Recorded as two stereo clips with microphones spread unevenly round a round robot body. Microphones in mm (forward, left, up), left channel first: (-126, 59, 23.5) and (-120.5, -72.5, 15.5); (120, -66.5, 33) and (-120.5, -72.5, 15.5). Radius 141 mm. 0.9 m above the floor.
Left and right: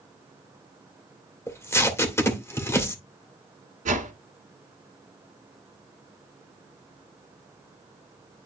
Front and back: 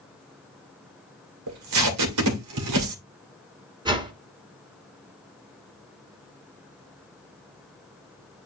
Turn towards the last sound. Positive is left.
turn(degrees=-105)